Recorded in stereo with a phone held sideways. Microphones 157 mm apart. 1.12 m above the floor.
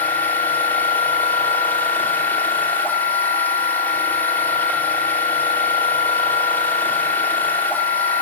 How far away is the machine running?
About 2.5 m.